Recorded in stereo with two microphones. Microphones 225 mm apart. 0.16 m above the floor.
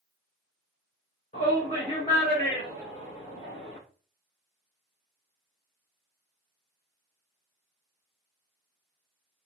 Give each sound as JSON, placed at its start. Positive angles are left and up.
{"t": 1.3, "sound": "a shout", "side_deg": 35, "distance_m": 2.5}